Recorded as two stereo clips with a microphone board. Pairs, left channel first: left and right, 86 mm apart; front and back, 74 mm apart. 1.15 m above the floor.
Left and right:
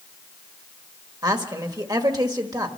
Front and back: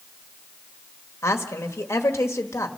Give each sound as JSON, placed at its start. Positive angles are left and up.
{"t": 1.2, "sound": "a woman speaking", "azimuth_deg": -50, "distance_m": 1.5}